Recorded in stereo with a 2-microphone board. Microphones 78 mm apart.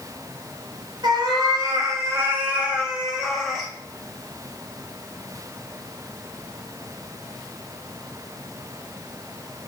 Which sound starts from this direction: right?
A cat meowing, at 1.0 s.